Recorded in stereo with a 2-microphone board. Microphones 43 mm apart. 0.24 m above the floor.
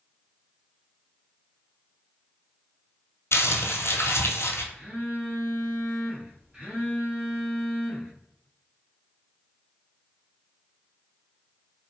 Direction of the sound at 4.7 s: 25° right (ahead or behind).